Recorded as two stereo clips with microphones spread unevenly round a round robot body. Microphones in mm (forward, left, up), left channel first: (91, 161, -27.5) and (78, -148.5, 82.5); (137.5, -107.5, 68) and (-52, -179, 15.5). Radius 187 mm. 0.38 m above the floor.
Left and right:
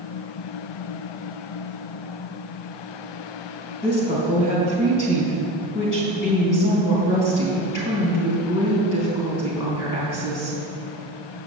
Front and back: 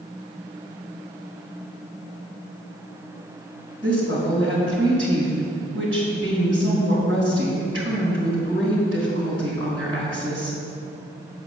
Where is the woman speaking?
135° left, 3 m.